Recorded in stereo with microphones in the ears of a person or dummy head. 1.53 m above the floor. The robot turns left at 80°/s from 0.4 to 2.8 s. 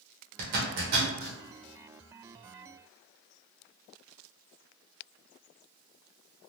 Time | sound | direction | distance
0.4 | a zipper | 55° right (ahead or behind) | 1.0 m